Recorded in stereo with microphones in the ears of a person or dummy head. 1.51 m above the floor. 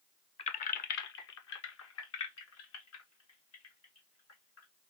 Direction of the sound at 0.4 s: 30° left (ahead or behind).